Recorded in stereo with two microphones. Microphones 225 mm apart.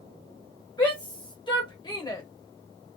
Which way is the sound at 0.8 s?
20° left (ahead or behind).